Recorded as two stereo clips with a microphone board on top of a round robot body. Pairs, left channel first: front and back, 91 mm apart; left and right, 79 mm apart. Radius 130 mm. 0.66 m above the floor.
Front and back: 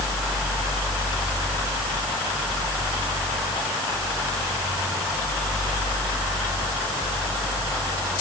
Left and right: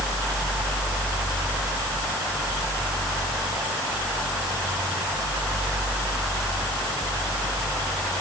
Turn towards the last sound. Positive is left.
No sound to turn to.